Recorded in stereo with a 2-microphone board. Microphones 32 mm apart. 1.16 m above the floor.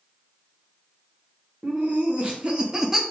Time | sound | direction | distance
1.6 | laughter | 60° right (ahead or behind) | 1.0 m